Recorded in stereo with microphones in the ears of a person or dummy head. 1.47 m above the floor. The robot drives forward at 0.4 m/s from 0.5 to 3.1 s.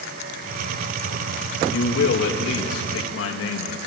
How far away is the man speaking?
About 2.5 m.